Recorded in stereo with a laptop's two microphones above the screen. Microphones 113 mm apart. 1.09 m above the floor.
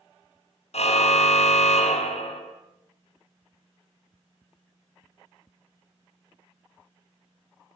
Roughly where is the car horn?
Left.